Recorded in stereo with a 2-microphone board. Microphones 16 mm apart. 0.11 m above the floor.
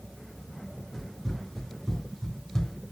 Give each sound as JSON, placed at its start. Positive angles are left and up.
{"t": 0.9, "sound": "running footsteps", "side_deg": 0, "distance_m": 2.0}